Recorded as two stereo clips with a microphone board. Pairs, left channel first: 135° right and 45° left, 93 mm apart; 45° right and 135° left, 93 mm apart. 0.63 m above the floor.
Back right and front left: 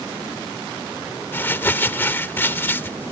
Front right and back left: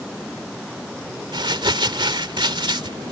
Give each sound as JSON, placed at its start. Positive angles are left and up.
{"t": 1.3, "sound": "crumpling", "azimuth_deg": 160}